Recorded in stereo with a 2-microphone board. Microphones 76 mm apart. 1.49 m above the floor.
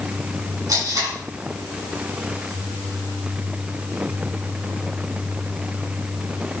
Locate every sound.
0.7 s tape being pulled: 55° right (ahead or behind), 7.5 m